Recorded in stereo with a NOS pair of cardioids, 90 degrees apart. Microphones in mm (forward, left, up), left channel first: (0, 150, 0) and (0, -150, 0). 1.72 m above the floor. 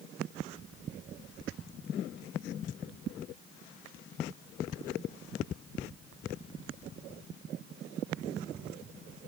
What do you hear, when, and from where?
Only background noise.